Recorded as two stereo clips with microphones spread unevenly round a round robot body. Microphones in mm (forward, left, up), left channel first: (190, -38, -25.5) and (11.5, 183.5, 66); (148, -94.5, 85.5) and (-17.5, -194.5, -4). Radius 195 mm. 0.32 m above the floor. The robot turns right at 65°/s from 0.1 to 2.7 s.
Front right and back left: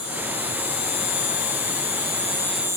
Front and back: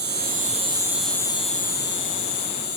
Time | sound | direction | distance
0.0 | an insect | 125° right | 1.1 m